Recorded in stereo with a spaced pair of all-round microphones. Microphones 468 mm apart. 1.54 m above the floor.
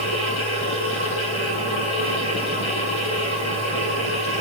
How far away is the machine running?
About 3 m.